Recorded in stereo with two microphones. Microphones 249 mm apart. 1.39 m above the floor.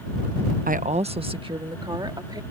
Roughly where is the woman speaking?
Right.